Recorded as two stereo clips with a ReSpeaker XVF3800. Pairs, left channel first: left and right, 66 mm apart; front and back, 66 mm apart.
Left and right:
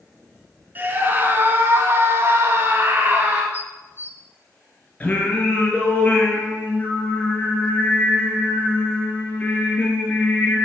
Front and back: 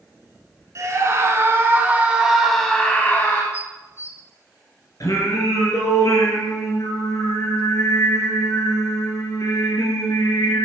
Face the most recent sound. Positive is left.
turn(degrees=25)